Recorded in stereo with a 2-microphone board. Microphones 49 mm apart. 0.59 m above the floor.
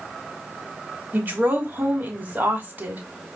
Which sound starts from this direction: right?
A woman speaking, at 1.1 s.